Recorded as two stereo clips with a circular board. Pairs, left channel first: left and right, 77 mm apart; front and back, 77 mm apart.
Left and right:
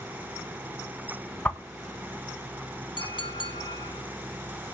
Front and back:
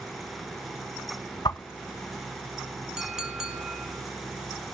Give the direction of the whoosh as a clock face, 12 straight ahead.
11 o'clock.